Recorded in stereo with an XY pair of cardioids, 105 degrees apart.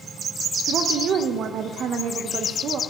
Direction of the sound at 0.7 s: 60° right.